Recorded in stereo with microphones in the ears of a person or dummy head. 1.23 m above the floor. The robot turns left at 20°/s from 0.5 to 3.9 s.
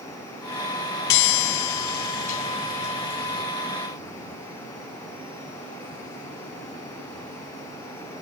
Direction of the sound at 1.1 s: 75° left.